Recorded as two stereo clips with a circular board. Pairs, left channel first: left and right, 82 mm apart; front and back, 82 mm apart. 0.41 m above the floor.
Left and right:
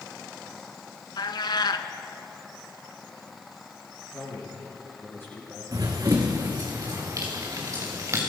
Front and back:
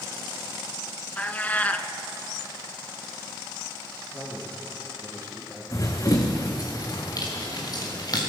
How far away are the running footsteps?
About 1.9 m.